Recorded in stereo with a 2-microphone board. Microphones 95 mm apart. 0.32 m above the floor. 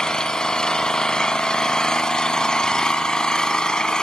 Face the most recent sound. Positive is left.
turn(degrees=10)  # may be behind; listen again after turning